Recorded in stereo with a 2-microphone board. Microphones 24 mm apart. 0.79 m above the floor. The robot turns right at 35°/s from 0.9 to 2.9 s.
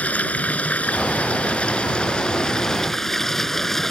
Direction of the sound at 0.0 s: 95° left.